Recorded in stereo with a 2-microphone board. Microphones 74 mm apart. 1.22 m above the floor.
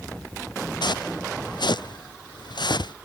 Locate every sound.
0.8 s footsteps: 80° left; by 2.9 s 75° left (ahead or behind)